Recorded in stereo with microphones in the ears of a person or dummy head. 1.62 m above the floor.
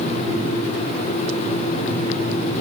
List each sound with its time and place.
Only background noise.